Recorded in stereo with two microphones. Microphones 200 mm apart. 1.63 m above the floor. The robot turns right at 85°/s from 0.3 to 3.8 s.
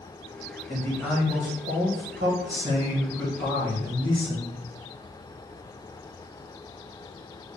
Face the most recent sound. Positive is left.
turn(degrees=55)